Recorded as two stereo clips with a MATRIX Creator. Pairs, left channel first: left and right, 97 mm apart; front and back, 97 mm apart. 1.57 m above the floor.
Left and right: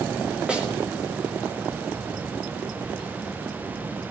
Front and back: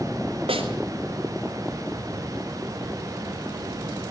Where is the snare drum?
170° right, 4.5 m.